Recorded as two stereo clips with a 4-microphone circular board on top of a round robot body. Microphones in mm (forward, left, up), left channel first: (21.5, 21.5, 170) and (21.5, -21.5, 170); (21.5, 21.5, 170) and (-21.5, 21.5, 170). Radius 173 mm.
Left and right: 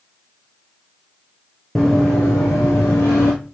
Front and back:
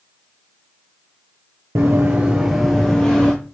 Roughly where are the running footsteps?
Behind.